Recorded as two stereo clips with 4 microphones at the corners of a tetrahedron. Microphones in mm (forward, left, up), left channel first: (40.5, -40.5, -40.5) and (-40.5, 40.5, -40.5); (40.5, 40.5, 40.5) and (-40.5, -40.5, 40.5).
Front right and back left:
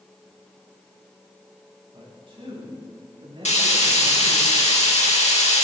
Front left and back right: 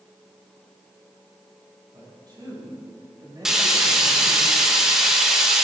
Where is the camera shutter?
No camera shutter in this recording.